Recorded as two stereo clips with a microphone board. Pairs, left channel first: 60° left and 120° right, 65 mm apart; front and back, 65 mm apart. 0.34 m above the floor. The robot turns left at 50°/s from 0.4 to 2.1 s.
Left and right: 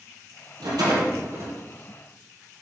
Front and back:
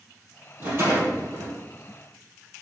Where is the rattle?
120° right, 4 m; by 1.5 s 170° right, 4 m.